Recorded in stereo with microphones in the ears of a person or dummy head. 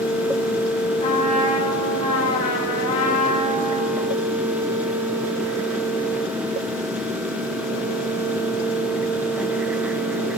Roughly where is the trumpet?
Left.